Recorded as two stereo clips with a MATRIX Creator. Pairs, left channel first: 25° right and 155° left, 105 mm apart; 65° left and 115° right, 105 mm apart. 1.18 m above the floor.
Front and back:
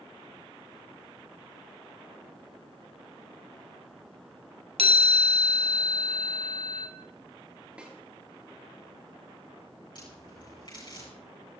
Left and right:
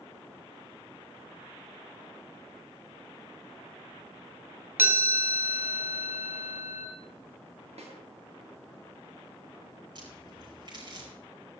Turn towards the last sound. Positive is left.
turn(degrees=-70)